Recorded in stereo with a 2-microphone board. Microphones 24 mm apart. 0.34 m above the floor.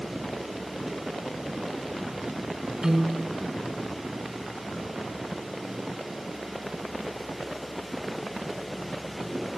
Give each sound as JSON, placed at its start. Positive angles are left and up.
{"t": 2.8, "sound": "a piano", "side_deg": -30, "distance_m": 1.9}